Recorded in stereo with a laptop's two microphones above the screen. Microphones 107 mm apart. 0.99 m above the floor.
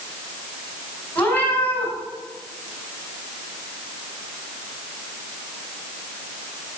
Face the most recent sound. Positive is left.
turn(degrees=15)  # may be behind; listen again after turning